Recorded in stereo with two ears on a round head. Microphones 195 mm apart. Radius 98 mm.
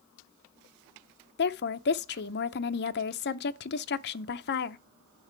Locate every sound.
1.4 s a woman speaking: 50° left (ahead or behind), 0.6 m